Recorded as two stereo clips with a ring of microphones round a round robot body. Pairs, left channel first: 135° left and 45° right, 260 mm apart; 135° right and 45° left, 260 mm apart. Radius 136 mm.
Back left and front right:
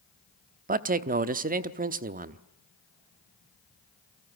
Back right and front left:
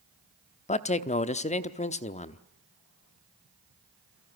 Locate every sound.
0.7 s a man speaking: 85° right, 1.0 m